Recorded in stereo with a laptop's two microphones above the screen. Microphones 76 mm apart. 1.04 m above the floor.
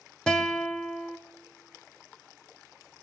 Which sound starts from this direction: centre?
A guitar, at 0.3 s.